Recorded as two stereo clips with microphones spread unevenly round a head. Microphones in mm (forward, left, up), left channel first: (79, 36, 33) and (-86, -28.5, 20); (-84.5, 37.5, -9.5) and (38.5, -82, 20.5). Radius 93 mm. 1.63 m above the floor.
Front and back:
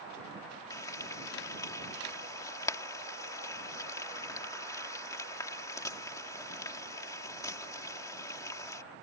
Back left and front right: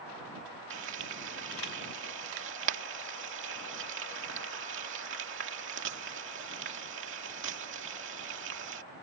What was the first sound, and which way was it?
Frying, 50° right.